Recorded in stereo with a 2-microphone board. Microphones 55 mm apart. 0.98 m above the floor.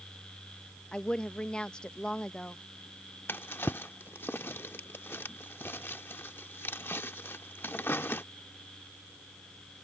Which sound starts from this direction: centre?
A woman speaking, at 0.9 s.